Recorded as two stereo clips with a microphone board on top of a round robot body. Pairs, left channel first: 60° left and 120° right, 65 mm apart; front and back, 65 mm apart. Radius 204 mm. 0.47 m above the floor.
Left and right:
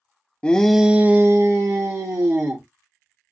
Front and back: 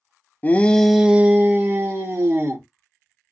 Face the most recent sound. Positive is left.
turn(degrees=-140)